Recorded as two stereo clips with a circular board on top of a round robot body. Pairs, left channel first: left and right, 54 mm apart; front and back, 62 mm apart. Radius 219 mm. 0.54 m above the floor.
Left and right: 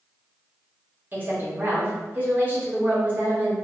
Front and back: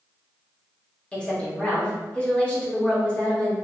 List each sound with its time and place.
1.1 s a woman speaking: 60° right, 1.4 m